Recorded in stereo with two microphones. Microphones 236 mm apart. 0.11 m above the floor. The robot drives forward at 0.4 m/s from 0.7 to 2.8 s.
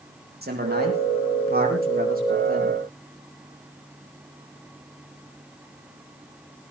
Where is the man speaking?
45° right (ahead or behind), 5.5 m; by 2.8 s 40° right (ahead or behind), 6 m.